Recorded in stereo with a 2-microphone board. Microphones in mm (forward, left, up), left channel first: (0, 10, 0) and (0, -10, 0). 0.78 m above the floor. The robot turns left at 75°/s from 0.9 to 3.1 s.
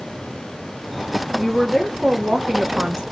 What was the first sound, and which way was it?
A woman speaking, straight ahead.